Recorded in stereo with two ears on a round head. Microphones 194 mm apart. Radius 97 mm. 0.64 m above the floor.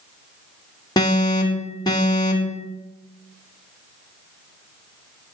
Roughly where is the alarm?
Centre.